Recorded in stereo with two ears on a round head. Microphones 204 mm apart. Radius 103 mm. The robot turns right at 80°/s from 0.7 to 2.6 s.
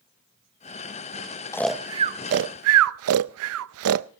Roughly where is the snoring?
Centre.